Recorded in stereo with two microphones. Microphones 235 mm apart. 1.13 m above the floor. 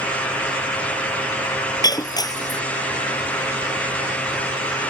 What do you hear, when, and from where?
1.8 s breaking glass: 15° left (ahead or behind)